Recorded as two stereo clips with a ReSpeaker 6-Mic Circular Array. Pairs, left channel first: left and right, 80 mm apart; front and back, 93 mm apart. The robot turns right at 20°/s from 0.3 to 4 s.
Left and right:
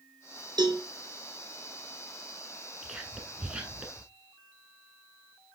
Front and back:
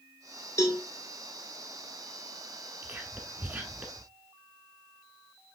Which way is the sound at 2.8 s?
160° right.